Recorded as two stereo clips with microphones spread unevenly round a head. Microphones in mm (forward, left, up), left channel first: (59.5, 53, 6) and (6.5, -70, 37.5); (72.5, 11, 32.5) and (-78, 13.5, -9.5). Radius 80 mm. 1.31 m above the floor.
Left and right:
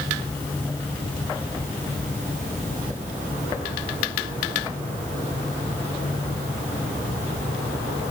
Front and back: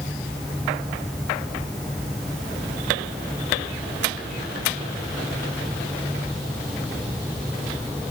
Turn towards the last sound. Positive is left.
No sound to turn to.